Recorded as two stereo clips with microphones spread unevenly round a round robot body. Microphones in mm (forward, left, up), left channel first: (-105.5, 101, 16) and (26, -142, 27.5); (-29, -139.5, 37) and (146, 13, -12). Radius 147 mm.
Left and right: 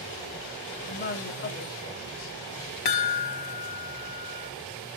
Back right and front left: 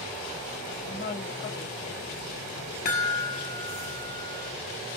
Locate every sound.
0.9 s a woman speaking: 160° left, 1.7 m; by 2.4 s 150° left, 2.5 m
2.9 s a chime: 155° left, 1.6 m